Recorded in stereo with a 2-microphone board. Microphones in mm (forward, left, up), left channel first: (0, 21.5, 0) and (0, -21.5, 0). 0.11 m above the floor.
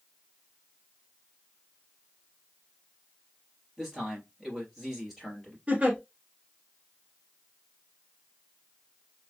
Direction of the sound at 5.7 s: 25° right (ahead or behind).